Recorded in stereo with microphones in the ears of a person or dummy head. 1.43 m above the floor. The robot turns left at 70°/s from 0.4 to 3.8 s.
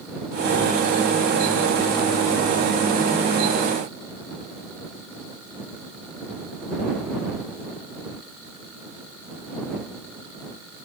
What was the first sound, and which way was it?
Only background noise.